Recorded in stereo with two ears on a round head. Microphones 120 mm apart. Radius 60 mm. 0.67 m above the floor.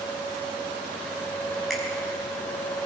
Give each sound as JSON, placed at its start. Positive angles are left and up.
{"t": 1.7, "sound": "a finger snap", "side_deg": 0, "distance_m": 6.0}